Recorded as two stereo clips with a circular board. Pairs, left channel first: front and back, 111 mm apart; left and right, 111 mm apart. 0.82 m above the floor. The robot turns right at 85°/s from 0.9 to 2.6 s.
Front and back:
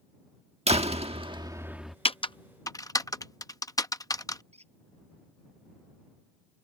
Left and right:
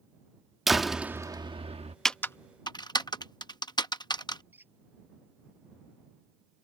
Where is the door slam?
Straight behind; by 1.9 s 90° right.